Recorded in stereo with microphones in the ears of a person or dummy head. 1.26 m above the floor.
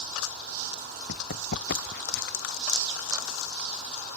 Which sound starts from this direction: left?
Running footsteps, at 1.1 s.